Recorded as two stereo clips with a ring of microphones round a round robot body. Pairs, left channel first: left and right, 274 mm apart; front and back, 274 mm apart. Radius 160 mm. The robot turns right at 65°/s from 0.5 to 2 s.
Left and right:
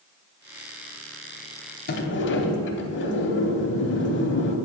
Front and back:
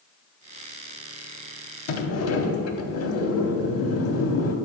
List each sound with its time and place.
1.9 s a sliding door: 30° left, 0.7 m; by 4.5 s 40° left, 0.7 m